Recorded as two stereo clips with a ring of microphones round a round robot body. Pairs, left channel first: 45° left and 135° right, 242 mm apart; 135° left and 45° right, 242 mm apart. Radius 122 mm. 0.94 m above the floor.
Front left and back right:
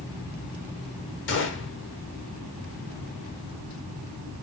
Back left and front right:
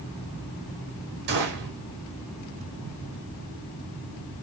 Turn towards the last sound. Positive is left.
turn(degrees=5)